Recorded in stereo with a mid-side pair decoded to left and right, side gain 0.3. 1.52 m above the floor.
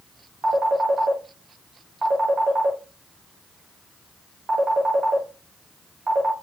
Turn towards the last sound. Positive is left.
turn(degrees=-45)